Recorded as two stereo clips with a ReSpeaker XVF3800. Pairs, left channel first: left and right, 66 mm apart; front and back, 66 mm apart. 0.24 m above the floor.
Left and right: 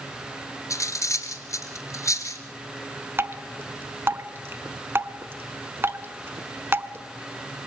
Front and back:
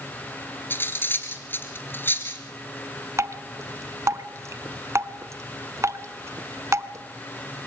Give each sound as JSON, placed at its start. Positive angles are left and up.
{"t": 0.7, "sound": "cutlery clinking", "azimuth_deg": 55, "distance_m": 2.5}
{"t": 3.2, "sound": "dripping", "azimuth_deg": -140, "distance_m": 0.9}